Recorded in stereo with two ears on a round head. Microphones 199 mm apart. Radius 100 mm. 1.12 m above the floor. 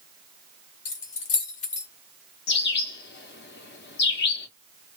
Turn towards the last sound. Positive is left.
turn(degrees=50)  # may be behind; listen again after turning